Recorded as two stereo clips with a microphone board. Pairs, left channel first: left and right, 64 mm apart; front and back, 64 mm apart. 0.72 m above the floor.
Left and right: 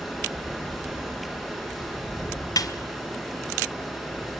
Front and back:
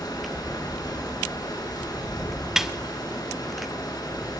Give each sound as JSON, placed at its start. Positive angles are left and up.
{"t": 0.0, "sound": "running water", "azimuth_deg": 0, "distance_m": 6.0}
{"t": 2.6, "sound": "a snare drum", "azimuth_deg": 95, "distance_m": 1.1}